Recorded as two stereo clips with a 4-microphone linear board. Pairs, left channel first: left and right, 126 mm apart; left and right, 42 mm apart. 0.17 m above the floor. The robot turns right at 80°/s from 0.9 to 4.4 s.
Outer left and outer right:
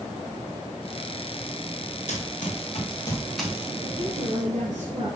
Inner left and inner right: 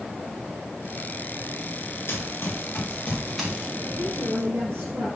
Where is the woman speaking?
130° right, 4.5 m; by 5.1 s 85° right, 4.5 m.